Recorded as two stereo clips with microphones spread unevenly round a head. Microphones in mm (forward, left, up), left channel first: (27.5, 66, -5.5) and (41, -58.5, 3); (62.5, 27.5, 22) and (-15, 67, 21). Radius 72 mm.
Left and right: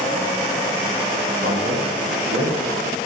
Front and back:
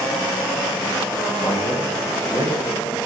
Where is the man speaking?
85° right, 2.5 m.